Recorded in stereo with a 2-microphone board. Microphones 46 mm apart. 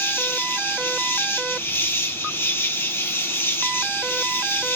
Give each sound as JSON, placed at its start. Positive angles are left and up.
{"t": 0.0, "sound": "an insect", "side_deg": 60, "distance_m": 0.9}